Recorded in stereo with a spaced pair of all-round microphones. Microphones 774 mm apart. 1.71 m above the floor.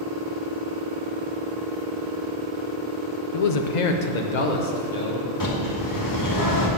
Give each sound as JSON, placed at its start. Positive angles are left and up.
{"t": 3.3, "sound": "a man speaking", "side_deg": 45, "distance_m": 0.6}
{"t": 5.4, "sound": "a bird", "side_deg": 25, "distance_m": 2.0}